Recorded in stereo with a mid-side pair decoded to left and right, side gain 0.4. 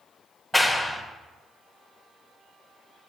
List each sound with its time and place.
0.5 s a clap: 5° left, 0.9 m